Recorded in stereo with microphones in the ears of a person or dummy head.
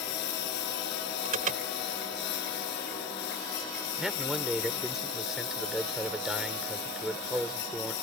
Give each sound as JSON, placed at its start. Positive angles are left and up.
{"t": 0.0, "sound": "a lawn mower", "side_deg": 60}
{"t": 1.2, "sound": "an alarm", "side_deg": -40}
{"t": 4.0, "sound": "a man speaking", "side_deg": -5}